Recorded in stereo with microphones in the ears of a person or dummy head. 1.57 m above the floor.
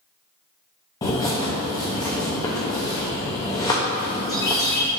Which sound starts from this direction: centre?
A bird, at 1.0 s.